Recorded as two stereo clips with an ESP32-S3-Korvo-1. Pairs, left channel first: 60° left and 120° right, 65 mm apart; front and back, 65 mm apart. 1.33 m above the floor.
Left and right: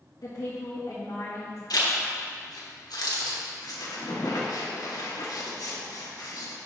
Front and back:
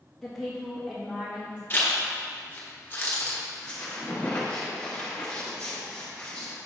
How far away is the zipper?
About 1.4 m.